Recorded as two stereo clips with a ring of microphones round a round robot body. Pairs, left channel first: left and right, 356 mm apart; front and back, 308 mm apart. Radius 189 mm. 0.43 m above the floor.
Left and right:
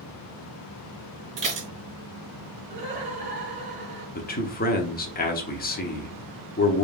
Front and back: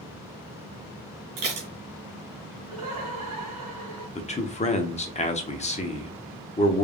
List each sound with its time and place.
1.4 s dishes clattering: 160° right, 2.5 m
2.7 s laughter: 160° right, 1.9 m
4.2 s a man speaking: 50° left, 0.9 m